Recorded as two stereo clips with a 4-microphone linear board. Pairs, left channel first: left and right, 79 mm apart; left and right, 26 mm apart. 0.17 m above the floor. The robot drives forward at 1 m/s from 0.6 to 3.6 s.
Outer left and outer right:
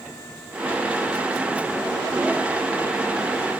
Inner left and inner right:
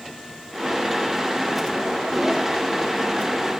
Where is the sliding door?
No sliding door in this recording.